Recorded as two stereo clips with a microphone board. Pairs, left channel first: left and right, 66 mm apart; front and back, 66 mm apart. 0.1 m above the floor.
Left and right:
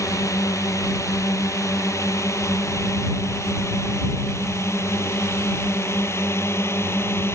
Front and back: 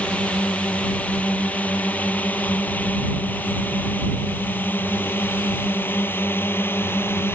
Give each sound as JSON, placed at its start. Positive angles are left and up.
{"t": 0.0, "sound": "a drone", "azimuth_deg": 65}